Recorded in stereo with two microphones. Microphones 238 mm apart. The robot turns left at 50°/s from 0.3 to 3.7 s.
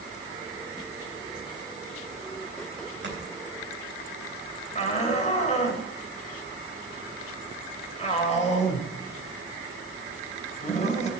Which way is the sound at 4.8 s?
30° left (ahead or behind).